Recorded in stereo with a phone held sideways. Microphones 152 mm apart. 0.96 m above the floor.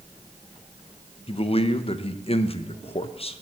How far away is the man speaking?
About 0.5 m.